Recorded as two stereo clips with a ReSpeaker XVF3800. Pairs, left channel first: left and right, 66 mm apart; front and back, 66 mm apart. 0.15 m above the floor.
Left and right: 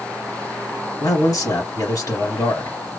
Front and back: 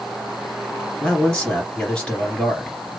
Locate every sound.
1.0 s a man speaking: 70° left, 2.5 m